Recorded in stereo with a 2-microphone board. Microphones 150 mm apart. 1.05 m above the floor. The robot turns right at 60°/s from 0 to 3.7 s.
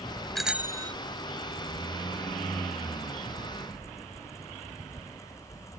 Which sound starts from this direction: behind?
A bicycle bell, at 0.3 s.